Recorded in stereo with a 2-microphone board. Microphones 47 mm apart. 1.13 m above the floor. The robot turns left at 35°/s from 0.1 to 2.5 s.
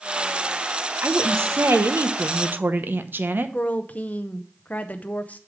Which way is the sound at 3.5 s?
35° left (ahead or behind).